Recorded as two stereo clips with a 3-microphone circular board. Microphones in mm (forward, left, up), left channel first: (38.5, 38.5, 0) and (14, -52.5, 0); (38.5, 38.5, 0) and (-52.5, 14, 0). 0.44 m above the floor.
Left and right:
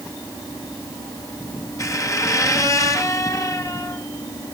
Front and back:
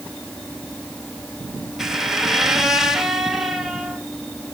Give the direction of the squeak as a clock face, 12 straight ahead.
8 o'clock.